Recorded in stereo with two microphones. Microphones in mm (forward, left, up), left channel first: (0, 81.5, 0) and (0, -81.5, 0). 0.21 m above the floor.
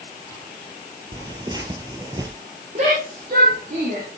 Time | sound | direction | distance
1.1 | tearing paper | 25° right (ahead or behind) | 2.5 m
2.8 | a shout | 45° right (ahead or behind) | 7 m